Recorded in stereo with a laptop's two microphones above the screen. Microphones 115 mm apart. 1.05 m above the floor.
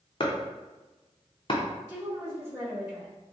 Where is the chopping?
45° left (ahead or behind), 0.6 m.